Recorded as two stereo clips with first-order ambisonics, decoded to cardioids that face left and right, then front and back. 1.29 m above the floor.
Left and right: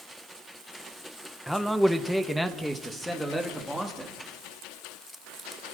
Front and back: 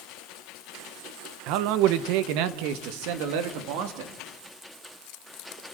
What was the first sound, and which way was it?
A man speaking, straight behind.